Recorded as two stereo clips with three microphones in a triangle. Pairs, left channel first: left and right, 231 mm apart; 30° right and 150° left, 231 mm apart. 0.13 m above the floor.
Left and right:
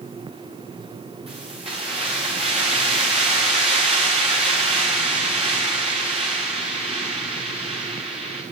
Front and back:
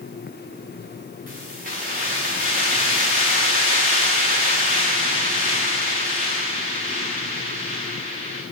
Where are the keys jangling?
155° right, 8.5 m.